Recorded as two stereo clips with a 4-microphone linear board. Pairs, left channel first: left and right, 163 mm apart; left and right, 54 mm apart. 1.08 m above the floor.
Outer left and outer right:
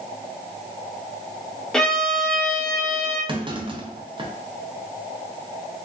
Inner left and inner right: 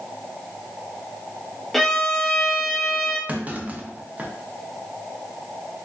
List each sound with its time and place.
1.7 s a violin: 5° left (ahead or behind), 0.7 m
3.3 s a clunk: 30° right (ahead or behind), 0.5 m